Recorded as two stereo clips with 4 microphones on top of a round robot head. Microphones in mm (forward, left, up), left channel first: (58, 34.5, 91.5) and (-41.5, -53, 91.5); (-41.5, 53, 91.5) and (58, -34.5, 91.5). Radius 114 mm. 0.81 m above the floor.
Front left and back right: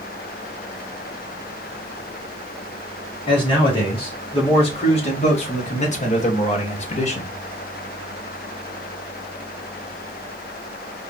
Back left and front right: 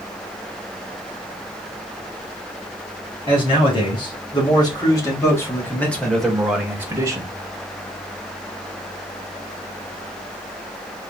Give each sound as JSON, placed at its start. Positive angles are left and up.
{"t": 3.3, "sound": "a man speaking", "azimuth_deg": 90, "distance_m": 3.0}